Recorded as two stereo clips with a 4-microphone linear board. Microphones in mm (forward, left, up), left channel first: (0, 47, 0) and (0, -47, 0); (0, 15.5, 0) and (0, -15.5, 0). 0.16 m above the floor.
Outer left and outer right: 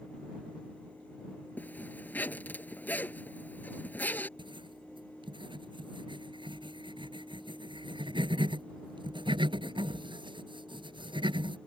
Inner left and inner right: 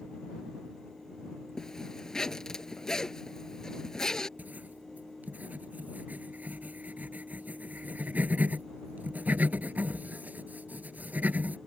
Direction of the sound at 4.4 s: 60° right (ahead or behind).